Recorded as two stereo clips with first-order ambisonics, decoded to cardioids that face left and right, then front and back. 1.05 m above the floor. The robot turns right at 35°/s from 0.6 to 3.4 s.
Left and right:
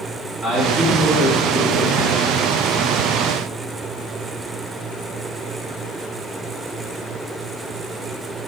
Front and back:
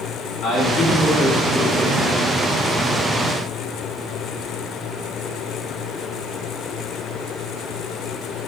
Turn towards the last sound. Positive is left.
turn(degrees=65)